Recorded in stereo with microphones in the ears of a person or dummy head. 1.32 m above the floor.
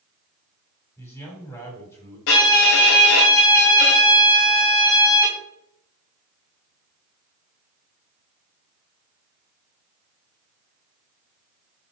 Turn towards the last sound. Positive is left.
turn(degrees=60)  # may be behind; listen again after turning